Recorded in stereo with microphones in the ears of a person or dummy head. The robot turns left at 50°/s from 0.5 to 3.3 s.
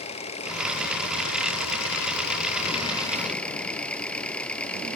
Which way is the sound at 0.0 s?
145° left.